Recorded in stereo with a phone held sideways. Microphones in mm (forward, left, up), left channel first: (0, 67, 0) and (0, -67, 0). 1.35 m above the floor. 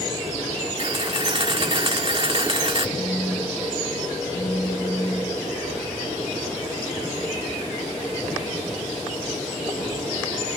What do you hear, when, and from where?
0.8 s a camera shutter: 40° right (ahead or behind), 1.5 m
3.0 s a phone buzzing: 45° left (ahead or behind), 7 m